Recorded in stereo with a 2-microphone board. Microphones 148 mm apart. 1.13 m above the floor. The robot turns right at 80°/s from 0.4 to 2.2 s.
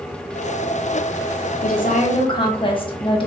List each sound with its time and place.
1.6 s a woman speaking: 100° left, 0.8 m; by 3.3 s 145° left, 0.8 m